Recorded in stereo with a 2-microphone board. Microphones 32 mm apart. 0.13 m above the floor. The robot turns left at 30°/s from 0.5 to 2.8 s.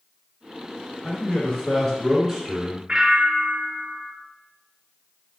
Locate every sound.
1.0 s a man speaking: 50° left, 2.0 m; by 2.8 s 5° right, 2.0 m
2.9 s a bell: 30° right (ahead or behind), 0.8 m